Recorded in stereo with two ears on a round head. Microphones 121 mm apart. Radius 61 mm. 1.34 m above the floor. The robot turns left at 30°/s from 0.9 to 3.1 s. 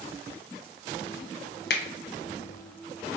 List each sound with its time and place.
1.7 s a finger snap: 90° left, 0.6 m; by 1.8 s 85° left, 0.6 m